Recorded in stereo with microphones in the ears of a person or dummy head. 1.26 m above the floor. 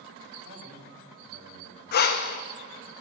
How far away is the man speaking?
About 3 m.